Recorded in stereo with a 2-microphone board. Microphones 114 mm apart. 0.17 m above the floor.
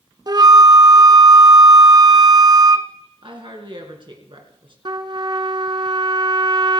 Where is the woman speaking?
45° right (ahead or behind), 2.5 m.